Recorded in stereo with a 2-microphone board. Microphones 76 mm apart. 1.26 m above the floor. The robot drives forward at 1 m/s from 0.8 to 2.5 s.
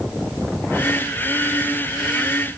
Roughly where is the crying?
I don't hear crying.